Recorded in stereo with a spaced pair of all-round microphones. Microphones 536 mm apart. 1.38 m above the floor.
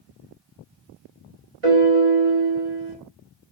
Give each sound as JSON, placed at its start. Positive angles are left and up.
{"t": 1.6, "sound": "a piano", "side_deg": -70, "distance_m": 1.9}